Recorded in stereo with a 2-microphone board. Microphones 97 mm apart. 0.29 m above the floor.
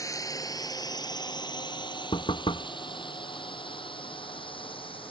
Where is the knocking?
70° left (ahead or behind).